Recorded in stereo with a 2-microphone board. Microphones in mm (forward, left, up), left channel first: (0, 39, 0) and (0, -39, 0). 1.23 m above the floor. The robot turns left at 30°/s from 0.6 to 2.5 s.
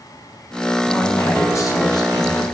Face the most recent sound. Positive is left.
turn(degrees=105)